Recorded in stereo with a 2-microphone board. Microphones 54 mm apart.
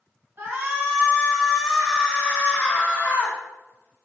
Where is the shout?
40° right (ahead or behind), 1.3 m; by 3.4 s 40° left (ahead or behind), 1.6 m.